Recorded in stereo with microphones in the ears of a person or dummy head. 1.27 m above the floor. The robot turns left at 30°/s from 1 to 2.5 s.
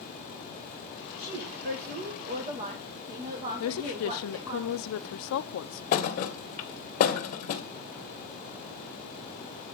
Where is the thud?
50° left (ahead or behind), 1.1 m.